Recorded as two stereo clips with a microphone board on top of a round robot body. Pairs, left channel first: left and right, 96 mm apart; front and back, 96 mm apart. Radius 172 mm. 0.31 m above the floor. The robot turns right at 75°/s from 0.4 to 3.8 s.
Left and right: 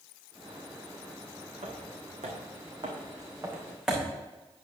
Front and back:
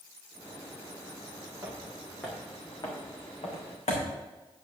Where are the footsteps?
115° right, 2 m; by 4.1 s 10° right, 2.5 m.